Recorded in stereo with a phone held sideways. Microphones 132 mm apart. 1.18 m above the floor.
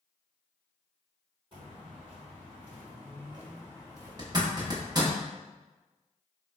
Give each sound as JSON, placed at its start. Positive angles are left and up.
{"t": 1.5, "sound": "footsteps", "side_deg": -40, "distance_m": 2.0}
{"t": 4.2, "sound": "a zipper", "side_deg": -30, "distance_m": 0.8}